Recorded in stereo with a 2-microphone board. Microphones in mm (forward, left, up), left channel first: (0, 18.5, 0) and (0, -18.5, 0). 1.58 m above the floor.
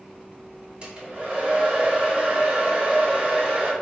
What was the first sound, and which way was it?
A hair dryer, 30° right (ahead or behind).